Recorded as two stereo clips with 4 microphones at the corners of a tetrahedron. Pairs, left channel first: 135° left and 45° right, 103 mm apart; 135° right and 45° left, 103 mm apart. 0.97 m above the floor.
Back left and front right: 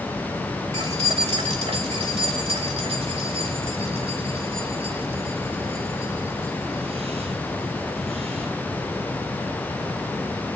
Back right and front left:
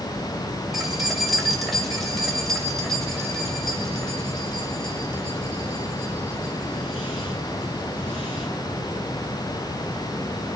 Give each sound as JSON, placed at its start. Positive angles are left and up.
{"t": 0.7, "sound": "keys jangling", "azimuth_deg": -45, "distance_m": 2.5}